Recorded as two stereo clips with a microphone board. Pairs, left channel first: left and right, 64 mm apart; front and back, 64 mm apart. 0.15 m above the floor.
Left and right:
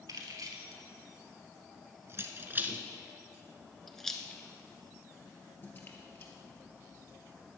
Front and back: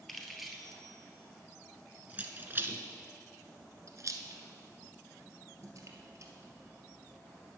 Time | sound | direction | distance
0.1 | keys jangling | 90° right | 2.0 m